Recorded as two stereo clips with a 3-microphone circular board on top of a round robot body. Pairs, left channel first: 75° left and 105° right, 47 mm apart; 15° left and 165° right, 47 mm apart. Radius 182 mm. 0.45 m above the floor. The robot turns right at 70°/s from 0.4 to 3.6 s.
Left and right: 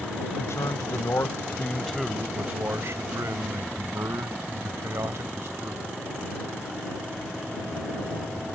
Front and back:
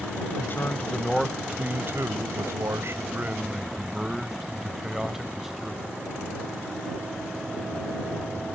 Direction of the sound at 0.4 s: 55° left.